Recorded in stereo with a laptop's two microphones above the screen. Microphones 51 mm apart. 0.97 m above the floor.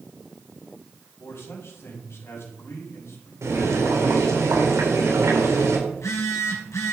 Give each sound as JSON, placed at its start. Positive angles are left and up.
{"t": 1.2, "sound": "a man speaking", "side_deg": 50, "distance_m": 6.0}
{"t": 3.4, "sound": "boiling", "side_deg": -75, "distance_m": 3.5}
{"t": 5.9, "sound": "a phone buzzing", "side_deg": 80, "distance_m": 4.0}